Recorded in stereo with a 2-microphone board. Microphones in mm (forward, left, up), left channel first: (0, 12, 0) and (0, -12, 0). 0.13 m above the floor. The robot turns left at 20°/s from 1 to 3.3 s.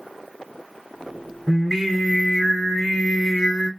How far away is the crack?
I don't hear a crack.